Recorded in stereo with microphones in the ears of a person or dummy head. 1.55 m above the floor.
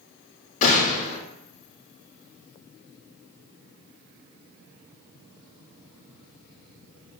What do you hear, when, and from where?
0.6 s a gunshot: 35° left (ahead or behind), 0.5 m